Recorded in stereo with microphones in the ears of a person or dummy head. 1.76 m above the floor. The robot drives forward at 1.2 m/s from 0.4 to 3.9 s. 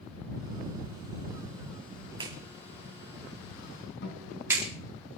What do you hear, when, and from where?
2.2 s a clap: 30° right (ahead or behind), 1.6 m; by 4.7 s 15° right (ahead or behind), 3.5 m
4.0 s a guitar: 70° left (ahead or behind), 4 m